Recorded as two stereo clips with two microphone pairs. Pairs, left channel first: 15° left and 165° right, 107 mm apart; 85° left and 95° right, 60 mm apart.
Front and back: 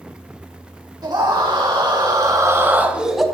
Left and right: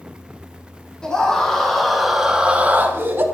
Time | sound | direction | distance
1.0 | a scream | 155° left | 2.5 m